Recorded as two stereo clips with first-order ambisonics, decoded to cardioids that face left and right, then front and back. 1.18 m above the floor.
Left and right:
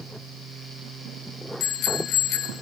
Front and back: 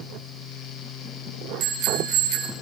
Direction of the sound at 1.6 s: 130° left.